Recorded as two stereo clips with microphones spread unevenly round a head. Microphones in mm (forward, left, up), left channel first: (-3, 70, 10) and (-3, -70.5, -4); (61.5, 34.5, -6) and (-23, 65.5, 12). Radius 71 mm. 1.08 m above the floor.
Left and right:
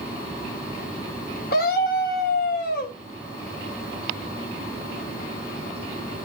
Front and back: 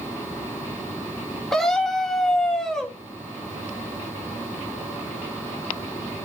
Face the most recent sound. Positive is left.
turn(degrees=65)